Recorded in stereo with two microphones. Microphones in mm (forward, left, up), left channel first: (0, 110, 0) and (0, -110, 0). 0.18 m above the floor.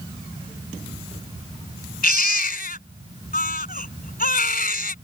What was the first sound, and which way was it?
A baby crying, 45° left (ahead or behind).